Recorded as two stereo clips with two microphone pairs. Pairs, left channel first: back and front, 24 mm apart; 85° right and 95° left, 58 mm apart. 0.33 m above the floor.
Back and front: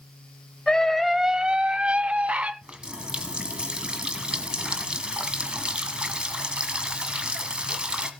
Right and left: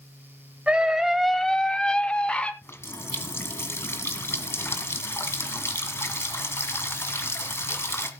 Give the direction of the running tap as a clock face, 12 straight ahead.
2 o'clock.